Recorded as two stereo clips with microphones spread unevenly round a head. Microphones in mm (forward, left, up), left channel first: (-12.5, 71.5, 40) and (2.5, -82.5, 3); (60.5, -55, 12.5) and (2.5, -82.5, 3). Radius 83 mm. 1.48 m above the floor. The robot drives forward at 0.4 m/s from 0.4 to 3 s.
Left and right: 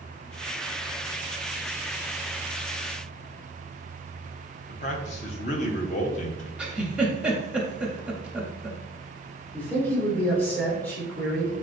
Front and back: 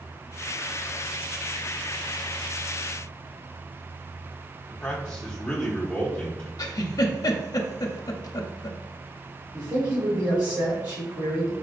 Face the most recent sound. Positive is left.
turn(degrees=175)